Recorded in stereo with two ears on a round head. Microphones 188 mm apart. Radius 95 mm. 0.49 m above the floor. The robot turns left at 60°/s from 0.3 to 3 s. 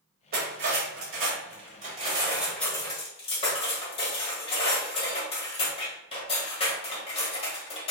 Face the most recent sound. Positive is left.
turn(degrees=150)